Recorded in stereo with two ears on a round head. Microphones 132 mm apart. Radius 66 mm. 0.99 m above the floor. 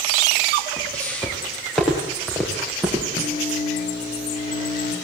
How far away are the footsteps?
About 5.5 m.